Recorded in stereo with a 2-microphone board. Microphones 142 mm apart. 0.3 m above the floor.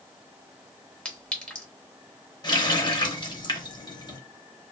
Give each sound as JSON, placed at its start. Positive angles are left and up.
{"t": 1.1, "sound": "a clink", "side_deg": 5, "distance_m": 0.8}
{"t": 2.4, "sound": "a running tap", "side_deg": 30, "distance_m": 0.6}